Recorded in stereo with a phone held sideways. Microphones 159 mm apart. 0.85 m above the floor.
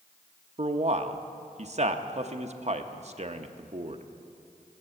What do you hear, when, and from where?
0.6 s a man speaking: 45° right (ahead or behind), 0.7 m